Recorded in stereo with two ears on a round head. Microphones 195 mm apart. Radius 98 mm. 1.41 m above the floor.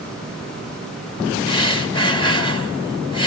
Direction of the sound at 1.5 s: 25° left (ahead or behind).